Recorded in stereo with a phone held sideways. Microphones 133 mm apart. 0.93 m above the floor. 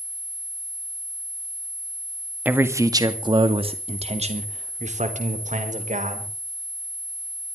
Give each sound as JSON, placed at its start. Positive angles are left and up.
{"t": 2.5, "sound": "a man speaking", "side_deg": -15, "distance_m": 1.8}